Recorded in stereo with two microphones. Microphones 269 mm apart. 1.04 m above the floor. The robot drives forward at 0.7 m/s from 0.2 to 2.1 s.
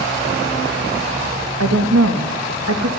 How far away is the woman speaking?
About 1.2 m.